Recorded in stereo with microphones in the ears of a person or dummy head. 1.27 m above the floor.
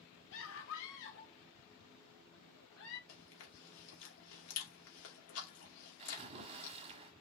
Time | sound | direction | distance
0.3 | a scream | 70° left (ahead or behind) | 2 m
3.1 | chewing | 80° left | 2.5 m
6.0 | a splash | 35° right (ahead or behind) | 1.3 m